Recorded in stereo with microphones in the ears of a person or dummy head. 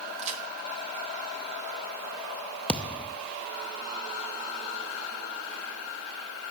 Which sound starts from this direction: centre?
A thud, at 2.7 s.